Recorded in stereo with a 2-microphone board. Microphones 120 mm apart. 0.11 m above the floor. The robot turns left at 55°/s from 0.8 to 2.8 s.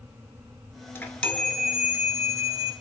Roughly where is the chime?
Ahead left.